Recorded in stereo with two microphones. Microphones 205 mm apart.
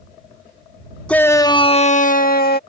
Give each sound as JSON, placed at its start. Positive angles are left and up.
{"t": 1.1, "sound": "a shout", "side_deg": 5}